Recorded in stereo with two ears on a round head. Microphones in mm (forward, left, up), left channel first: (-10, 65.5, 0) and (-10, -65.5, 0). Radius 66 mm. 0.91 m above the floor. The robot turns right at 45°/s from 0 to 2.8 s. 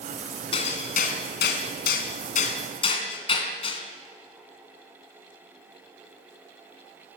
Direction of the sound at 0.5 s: 35° left (ahead or behind).